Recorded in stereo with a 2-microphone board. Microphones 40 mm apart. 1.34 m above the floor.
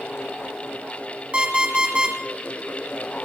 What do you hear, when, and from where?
1.3 s an alarm clock: 30° right (ahead or behind), 3.5 m